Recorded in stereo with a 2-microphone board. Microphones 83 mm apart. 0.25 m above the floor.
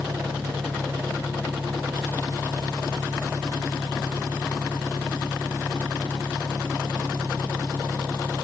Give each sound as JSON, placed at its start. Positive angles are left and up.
{"t": 0.0, "sound": "an engine running", "side_deg": -50}